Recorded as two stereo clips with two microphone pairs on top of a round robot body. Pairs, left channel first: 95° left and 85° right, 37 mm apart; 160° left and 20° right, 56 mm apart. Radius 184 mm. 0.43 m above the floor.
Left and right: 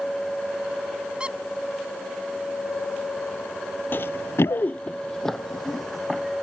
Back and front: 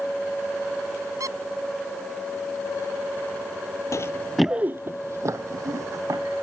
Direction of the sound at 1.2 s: 25° right.